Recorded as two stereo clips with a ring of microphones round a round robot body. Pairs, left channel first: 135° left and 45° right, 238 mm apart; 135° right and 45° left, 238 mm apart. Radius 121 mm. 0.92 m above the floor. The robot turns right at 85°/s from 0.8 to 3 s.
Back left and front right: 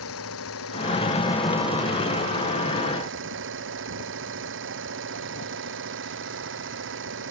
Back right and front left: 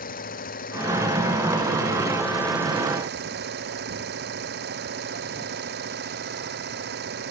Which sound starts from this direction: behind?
An engine running, at 0.0 s.